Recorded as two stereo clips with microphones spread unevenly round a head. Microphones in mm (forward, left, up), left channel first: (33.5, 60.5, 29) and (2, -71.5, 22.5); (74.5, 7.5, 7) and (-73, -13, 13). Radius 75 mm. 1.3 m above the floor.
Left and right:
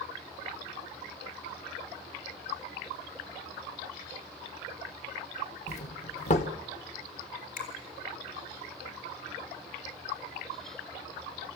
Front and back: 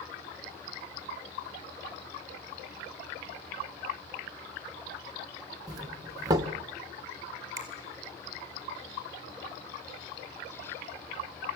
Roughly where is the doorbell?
Behind left.